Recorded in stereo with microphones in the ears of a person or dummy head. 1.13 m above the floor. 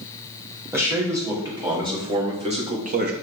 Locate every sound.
0.7 s a man speaking: 10° right (ahead or behind), 3 m; by 3.1 s 50° right (ahead or behind), 1.5 m